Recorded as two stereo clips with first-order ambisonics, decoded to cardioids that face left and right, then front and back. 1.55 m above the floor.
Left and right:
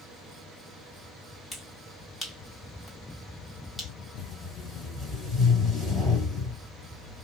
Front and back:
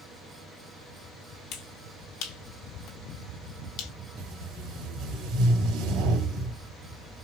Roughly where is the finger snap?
Ahead.